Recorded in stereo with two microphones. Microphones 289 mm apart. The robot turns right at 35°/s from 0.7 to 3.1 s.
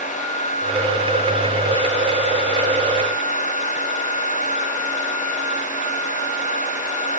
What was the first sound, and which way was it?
Only background noise.